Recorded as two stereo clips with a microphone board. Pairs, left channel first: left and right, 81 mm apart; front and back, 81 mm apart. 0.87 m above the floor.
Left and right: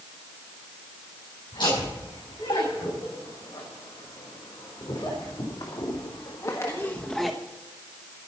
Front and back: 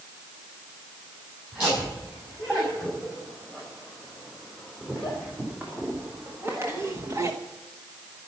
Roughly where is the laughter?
Left.